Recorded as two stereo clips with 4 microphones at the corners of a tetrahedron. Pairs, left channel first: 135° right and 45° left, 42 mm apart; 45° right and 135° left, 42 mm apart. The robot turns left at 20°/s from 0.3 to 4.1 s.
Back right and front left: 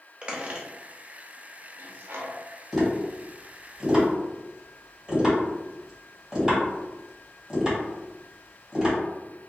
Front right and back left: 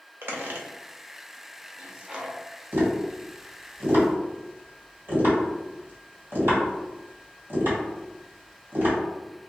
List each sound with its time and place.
0.2 s a squeak: 110° left, 0.6 m; by 2.4 s 70° left, 0.6 m
2.7 s tapping: 145° left, 2.0 m; by 9.0 s 120° left, 2.0 m